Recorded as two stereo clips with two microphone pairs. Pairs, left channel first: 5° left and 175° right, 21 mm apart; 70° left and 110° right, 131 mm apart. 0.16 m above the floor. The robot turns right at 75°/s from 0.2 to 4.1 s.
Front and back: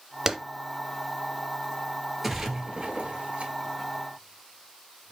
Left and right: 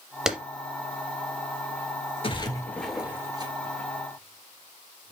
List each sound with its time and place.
0.3 s a clap: 170° left, 0.9 m; by 0.4 s 175° left, 0.9 m
2.2 s a splash: 105° left, 1.1 m; by 5.1 s 115° right, 1.1 m